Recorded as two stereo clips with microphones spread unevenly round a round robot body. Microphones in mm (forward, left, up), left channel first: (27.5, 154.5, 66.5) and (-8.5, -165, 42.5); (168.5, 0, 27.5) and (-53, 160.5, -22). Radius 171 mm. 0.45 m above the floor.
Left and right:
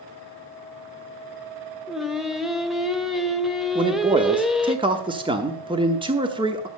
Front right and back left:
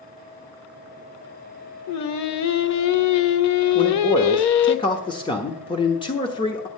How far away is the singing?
About 0.7 m.